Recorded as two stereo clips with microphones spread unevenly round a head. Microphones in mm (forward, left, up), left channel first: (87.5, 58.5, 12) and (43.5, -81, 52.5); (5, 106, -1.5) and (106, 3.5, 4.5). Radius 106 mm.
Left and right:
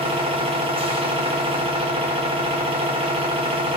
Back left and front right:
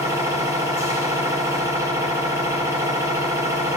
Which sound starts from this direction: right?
A machine running, at 0.0 s.